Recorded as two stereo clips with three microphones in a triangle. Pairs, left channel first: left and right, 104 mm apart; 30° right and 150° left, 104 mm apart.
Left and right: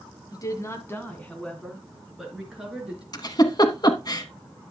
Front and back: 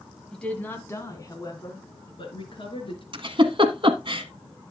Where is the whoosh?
I don't hear a whoosh.